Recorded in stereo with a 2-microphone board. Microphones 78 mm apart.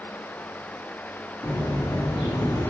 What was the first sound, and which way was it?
Footsteps, 80° left.